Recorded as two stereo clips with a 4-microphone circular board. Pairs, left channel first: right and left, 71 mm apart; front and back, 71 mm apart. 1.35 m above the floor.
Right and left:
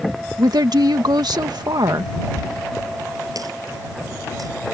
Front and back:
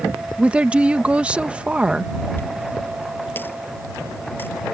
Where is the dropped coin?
60° left.